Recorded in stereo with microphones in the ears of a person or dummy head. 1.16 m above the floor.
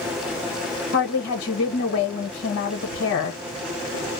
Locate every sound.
0.9 s a woman speaking: 60° left (ahead or behind), 1.1 m